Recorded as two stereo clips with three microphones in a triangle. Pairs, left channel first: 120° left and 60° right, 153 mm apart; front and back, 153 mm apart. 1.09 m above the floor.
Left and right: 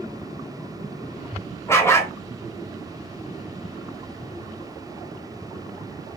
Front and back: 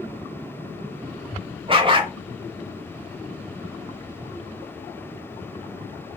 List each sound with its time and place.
1.7 s a dog barking: straight behind, 0.9 m